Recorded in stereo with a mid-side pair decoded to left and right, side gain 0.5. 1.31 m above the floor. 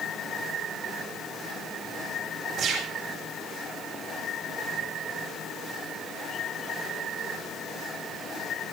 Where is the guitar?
I don't hear a guitar.